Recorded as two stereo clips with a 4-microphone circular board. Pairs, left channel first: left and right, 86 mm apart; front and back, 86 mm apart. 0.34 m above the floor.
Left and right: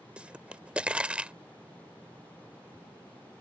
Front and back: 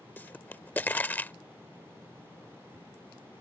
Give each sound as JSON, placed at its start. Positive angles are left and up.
{"t": 0.2, "sound": "a pop", "azimuth_deg": -35}